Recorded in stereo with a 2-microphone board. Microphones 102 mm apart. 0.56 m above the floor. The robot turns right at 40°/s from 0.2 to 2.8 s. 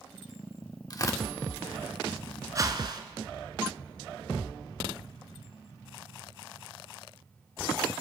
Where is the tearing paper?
40° left (ahead or behind), 0.7 m; by 1.2 s 25° left (ahead or behind), 0.7 m.